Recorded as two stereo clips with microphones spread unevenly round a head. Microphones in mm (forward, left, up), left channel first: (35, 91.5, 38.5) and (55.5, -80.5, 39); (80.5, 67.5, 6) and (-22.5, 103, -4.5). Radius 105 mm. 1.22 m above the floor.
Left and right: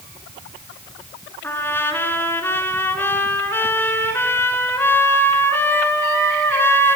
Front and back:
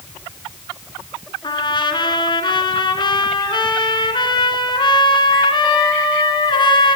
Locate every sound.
1.4 s a trumpet: 20° left, 4 m